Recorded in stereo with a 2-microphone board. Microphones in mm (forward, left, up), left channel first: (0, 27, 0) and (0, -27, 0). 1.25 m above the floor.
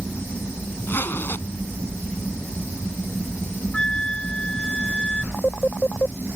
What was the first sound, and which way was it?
A zipper, 40° left (ahead or behind).